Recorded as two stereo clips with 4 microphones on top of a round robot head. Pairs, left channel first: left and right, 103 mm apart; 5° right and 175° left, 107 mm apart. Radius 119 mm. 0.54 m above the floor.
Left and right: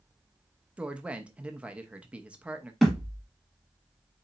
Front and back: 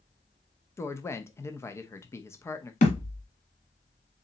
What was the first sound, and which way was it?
A woman speaking, 25° right.